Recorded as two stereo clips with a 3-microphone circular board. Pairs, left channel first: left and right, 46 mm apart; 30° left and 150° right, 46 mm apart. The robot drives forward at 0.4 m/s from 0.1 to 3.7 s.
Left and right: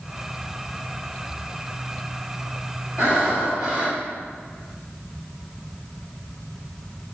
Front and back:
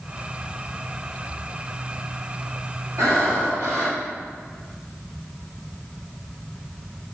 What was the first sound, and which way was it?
Breathing, 160° right.